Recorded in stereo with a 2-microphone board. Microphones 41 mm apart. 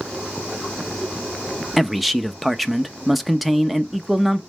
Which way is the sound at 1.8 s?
Centre (ahead or behind).